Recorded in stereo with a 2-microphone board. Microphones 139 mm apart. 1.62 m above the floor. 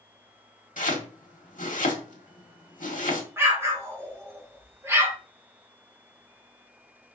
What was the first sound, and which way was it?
Chopping, 75° left (ahead or behind).